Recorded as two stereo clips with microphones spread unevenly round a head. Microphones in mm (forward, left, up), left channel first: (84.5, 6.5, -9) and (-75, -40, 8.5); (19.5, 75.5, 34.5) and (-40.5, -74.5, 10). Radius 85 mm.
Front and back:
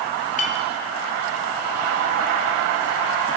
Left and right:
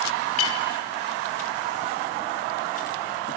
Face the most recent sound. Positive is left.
turn(degrees=65)